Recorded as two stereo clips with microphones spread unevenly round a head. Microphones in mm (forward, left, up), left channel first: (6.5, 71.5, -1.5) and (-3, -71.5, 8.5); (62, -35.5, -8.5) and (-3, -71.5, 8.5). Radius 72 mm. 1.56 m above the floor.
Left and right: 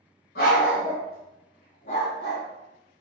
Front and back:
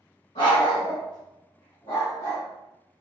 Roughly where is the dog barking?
Left.